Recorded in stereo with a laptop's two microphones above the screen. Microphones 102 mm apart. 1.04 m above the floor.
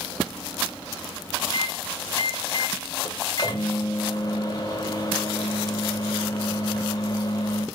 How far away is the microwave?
About 1.5 m.